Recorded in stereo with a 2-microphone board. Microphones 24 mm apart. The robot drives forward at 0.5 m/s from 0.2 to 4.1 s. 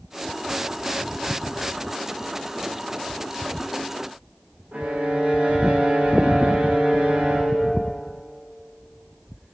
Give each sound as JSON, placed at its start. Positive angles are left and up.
{"t": 4.7, "sound": "a violin", "side_deg": -85, "distance_m": 7.0}